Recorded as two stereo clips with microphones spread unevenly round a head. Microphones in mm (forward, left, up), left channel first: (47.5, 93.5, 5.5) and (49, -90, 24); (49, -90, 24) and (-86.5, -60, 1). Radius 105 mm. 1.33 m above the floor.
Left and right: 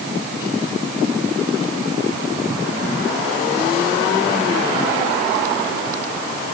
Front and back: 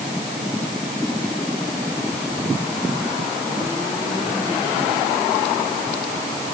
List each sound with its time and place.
Only background noise.